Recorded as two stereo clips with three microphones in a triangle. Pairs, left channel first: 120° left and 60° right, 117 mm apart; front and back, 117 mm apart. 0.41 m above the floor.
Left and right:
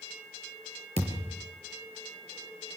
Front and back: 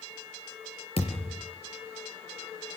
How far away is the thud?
About 4.5 m.